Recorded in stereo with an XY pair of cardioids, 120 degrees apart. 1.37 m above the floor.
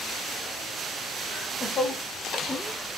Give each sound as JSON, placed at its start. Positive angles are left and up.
{"t": 1.3, "sound": "laughter", "azimuth_deg": 55, "distance_m": 0.9}